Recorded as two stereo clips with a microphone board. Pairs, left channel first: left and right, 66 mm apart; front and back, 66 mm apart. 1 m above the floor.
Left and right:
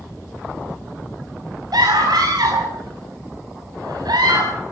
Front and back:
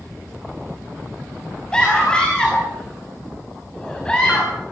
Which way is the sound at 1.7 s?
75° right.